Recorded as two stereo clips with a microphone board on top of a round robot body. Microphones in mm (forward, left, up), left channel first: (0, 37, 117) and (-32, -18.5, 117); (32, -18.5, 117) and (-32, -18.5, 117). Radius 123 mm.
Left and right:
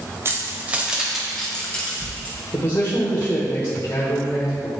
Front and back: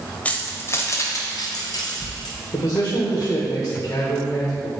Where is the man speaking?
10° left, 1.6 m.